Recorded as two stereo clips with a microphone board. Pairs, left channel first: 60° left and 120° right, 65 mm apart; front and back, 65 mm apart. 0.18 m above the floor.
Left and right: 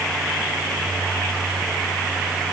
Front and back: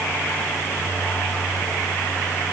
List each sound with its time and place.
Only background noise.